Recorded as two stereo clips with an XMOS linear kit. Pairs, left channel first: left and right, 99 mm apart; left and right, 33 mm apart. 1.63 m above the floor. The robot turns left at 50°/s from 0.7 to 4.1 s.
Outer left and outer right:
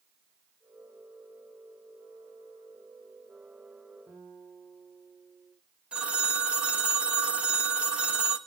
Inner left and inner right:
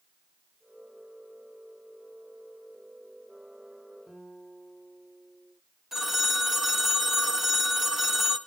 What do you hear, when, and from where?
4.1 s a guitar: 20° right (ahead or behind), 7 m
5.9 s a phone ringing: 10° right (ahead or behind), 1.2 m